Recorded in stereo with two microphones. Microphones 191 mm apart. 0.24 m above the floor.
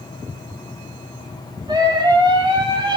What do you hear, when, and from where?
1.7 s a scream: 20° right (ahead or behind), 8.5 m; by 3.0 s 25° right (ahead or behind), 8 m